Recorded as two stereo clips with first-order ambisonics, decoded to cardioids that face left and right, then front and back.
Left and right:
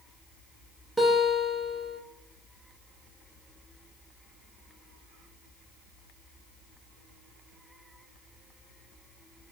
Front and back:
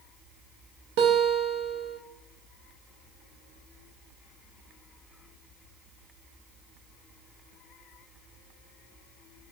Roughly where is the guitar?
Behind.